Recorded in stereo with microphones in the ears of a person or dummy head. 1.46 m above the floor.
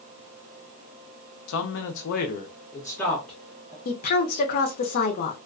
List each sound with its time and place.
1.5 s a man speaking: 80° left, 0.8 m; by 3.8 s 10° right (ahead or behind), 1.1 m
3.9 s a woman speaking: 45° left (ahead or behind), 0.7 m